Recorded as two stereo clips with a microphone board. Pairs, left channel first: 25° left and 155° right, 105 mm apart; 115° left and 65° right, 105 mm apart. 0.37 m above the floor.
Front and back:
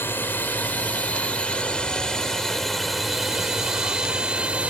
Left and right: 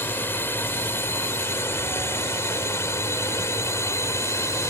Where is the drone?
70° left; by 4.7 s 140° left.